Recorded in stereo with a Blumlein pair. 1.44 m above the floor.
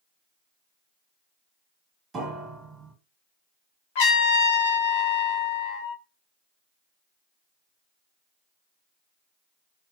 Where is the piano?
15° right, 1.4 m.